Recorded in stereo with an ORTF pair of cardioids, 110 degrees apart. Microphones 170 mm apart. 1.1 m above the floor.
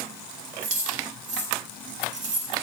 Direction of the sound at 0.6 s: 40° right.